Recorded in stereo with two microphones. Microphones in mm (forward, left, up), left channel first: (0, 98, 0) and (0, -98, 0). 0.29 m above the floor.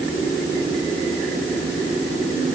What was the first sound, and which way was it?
Only background noise.